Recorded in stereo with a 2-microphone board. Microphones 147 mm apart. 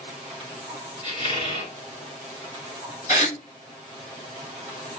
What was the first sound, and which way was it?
A squeak, 35° left (ahead or behind).